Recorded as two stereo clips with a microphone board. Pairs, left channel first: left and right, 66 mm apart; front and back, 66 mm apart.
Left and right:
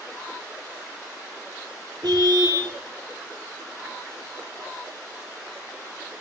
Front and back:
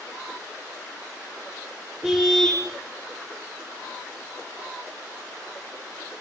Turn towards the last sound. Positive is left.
turn(degrees=-105)